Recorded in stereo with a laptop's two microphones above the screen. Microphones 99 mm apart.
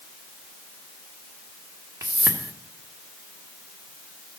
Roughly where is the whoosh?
Right.